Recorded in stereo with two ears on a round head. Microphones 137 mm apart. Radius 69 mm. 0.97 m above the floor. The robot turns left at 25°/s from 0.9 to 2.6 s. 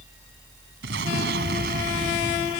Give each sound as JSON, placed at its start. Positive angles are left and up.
{"t": 0.8, "sound": "an explosion", "azimuth_deg": -90}